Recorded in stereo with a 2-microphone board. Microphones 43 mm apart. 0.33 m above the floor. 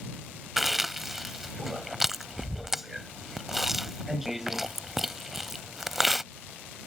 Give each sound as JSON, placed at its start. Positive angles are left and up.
{"t": 0.6, "sound": "chewing", "side_deg": -5}